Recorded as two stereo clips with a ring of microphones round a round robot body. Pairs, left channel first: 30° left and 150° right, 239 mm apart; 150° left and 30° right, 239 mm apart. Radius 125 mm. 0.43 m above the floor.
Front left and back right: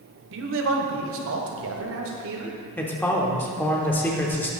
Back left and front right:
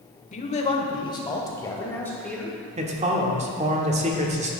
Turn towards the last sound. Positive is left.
turn(degrees=-45)